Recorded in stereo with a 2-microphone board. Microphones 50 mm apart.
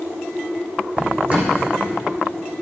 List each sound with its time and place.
1.0 s a drawer: 30° right (ahead or behind), 4 m